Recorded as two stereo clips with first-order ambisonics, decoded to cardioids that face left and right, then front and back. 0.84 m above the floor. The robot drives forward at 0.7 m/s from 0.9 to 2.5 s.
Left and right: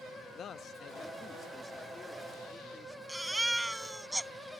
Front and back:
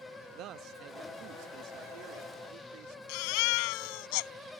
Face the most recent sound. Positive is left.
turn(degrees=-5)